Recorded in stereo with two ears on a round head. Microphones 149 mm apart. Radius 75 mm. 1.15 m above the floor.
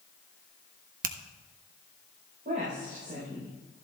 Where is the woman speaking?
50° right (ahead or behind), 4 m.